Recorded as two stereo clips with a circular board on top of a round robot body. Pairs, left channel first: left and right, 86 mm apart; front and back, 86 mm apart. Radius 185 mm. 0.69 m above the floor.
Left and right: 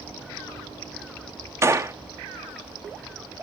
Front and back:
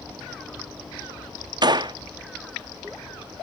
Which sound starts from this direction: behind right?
A gunshot, at 1.6 s.